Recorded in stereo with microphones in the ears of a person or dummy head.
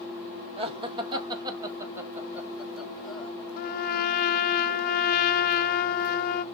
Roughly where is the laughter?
Right.